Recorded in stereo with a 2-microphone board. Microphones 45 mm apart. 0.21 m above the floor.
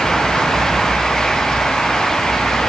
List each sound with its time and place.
Only background noise.